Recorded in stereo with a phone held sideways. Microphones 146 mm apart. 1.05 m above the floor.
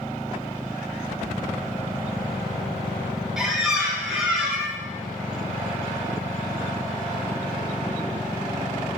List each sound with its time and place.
3.4 s a squeak: centre (ahead or behind), 0.6 m